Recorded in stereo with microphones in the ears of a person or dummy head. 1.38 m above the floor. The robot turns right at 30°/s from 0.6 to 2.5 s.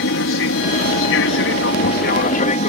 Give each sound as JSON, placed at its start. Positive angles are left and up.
{"t": 0.0, "sound": "an aircraft", "azimuth_deg": 90}